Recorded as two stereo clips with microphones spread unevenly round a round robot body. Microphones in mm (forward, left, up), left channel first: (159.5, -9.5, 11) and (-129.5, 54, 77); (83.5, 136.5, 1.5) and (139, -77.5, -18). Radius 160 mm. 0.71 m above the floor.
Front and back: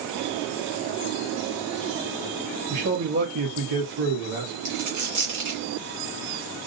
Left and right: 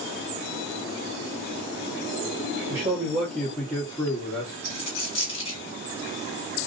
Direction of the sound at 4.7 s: 150° left.